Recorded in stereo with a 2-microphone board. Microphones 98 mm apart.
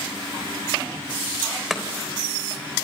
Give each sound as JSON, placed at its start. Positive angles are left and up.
{"t": 1.7, "sound": "chopping", "side_deg": 0, "distance_m": 3.5}